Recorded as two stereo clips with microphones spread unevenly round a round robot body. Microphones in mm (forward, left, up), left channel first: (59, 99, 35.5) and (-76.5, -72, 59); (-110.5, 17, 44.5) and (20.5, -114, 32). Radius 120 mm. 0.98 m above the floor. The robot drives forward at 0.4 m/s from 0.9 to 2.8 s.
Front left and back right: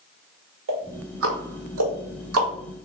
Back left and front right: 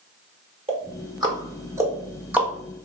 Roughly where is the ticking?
Right.